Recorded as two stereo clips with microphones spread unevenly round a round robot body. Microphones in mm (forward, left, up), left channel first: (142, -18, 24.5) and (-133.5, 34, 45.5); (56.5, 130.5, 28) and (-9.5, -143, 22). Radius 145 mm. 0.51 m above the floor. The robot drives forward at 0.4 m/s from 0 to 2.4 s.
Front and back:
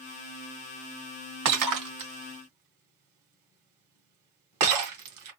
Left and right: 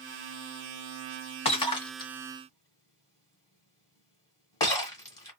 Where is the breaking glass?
145° left, 1.2 m; by 5.3 s 155° left, 1.6 m.